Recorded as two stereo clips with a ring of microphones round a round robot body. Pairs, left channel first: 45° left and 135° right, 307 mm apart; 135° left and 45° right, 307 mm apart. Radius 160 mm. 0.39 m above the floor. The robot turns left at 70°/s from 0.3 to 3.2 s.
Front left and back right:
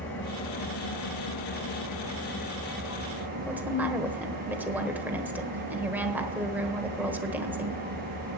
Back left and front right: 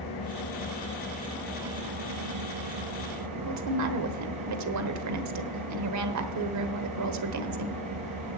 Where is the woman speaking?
50° right, 1.3 m.